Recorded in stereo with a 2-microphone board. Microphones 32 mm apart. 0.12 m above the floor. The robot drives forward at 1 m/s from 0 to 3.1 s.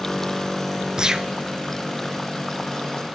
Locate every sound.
1.0 s a gunshot: 25° right (ahead or behind), 0.6 m; by 1.3 s 15° right (ahead or behind), 0.8 m